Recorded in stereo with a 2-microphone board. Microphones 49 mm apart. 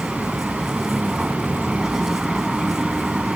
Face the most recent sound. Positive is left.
turn(degrees=-10)  # may be behind; listen again after turning